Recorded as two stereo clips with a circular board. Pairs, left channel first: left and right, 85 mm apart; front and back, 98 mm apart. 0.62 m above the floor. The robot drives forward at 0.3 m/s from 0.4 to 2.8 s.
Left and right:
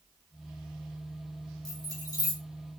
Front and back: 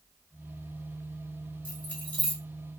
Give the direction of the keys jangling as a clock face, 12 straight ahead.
10 o'clock.